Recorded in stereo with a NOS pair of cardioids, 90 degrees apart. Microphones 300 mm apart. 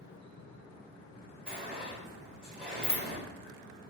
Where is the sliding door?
5° right, 1.6 m.